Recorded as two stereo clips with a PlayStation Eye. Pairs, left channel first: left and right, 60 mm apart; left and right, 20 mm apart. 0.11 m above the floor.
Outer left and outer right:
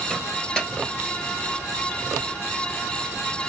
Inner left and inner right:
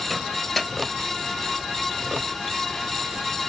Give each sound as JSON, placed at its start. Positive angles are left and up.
{"t": 0.1, "sound": "a microwave", "side_deg": 15, "distance_m": 1.5}